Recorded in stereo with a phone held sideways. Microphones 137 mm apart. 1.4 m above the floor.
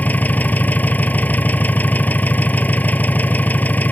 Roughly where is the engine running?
Centre.